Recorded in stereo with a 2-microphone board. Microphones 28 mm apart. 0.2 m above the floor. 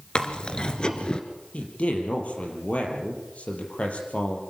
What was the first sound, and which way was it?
Chewing, 35° left (ahead or behind).